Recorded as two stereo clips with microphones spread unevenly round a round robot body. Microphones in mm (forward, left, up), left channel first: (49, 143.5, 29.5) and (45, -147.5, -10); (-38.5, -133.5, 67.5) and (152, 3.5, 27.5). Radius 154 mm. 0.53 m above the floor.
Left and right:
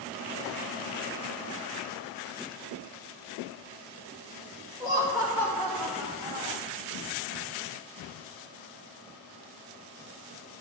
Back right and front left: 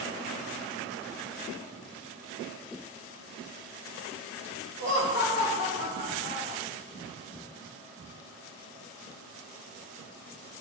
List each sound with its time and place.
4.8 s laughter: 165° right, 2.5 m; by 6.6 s straight behind, 1.7 m